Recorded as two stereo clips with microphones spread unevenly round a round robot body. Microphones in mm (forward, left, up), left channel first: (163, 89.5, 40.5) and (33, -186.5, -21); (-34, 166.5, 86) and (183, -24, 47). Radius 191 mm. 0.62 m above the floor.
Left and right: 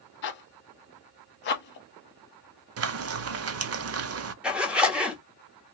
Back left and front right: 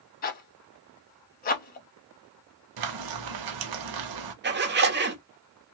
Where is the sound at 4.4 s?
45° right, 0.9 m.